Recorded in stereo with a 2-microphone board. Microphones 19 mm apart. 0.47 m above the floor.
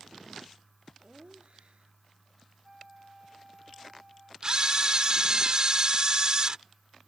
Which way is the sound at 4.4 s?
40° right (ahead or behind).